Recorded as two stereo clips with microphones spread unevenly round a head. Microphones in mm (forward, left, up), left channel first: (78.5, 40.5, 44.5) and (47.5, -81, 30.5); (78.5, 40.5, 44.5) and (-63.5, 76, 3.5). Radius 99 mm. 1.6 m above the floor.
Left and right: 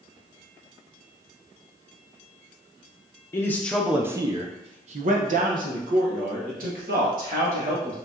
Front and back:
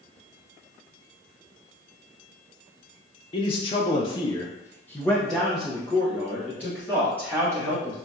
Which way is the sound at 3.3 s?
15° left.